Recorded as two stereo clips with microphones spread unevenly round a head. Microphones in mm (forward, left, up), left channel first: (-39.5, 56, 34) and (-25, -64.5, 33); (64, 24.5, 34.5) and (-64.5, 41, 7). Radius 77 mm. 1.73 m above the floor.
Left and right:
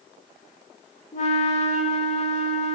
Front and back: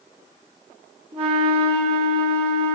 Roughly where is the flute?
Behind left.